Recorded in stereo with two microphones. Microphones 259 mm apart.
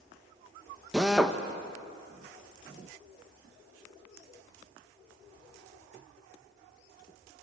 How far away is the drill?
About 1.2 m.